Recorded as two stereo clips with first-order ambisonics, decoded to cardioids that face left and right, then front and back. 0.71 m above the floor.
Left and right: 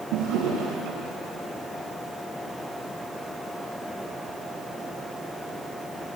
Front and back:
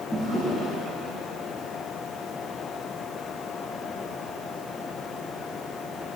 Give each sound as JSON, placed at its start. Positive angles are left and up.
{"t": 0.1, "sound": "a drawer", "azimuth_deg": -80, "distance_m": 5.0}